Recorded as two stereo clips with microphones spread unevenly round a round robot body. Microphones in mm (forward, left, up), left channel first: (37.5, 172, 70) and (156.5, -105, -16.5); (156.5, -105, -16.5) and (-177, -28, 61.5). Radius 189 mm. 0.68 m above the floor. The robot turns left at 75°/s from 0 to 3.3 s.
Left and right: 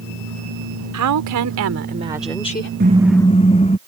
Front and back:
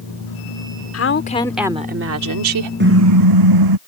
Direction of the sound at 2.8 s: 135° right.